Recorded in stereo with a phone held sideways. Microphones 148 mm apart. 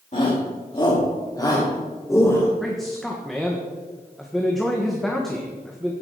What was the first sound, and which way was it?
A shout, 50° left (ahead or behind).